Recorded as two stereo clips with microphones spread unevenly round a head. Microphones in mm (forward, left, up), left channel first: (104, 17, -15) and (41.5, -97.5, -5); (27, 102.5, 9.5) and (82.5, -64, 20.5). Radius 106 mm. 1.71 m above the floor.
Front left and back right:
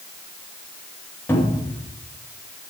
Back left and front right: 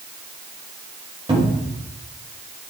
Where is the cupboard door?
10° right, 3 m.